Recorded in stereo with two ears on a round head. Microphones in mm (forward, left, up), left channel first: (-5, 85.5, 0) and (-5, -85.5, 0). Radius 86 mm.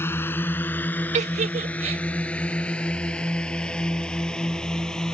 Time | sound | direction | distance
0.0 | a drone | 10° left (ahead or behind) | ?
1.1 | a giggle | 35° right (ahead or behind) | ?